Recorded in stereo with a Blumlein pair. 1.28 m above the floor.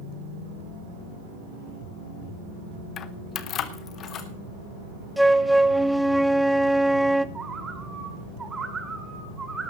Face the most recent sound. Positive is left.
turn(degrees=-15)